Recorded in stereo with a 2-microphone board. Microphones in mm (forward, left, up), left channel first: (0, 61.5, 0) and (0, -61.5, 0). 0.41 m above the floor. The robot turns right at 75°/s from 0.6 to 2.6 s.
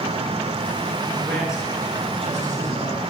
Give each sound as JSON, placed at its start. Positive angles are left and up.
{"t": 1.1, "sound": "a man speaking", "azimuth_deg": 160, "distance_m": 7.5}